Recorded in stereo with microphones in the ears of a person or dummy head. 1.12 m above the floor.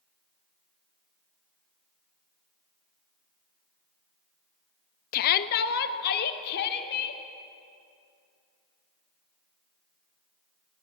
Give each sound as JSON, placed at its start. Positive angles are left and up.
{"t": 5.1, "sound": "a shout", "side_deg": 45, "distance_m": 0.7}